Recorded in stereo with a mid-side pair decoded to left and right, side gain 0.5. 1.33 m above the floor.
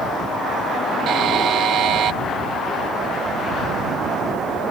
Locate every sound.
1.1 s a buzzer: 65° right